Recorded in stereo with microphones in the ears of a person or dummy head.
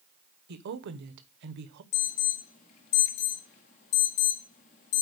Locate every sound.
0.5 s a woman speaking: 55° right (ahead or behind), 0.9 m
1.9 s an alarm: 30° left (ahead or behind), 0.8 m